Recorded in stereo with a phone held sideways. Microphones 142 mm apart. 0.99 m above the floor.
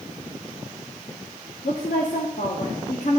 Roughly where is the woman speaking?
Left.